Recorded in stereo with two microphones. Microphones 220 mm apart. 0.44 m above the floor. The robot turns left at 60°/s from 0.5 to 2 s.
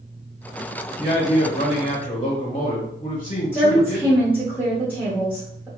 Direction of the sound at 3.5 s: 5° right (ahead or behind).